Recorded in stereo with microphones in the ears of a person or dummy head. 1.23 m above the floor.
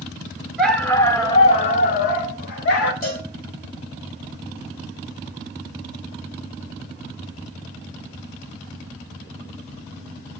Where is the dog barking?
5° right (ahead or behind), 1.1 m; by 2.9 s 65° left (ahead or behind), 1.9 m.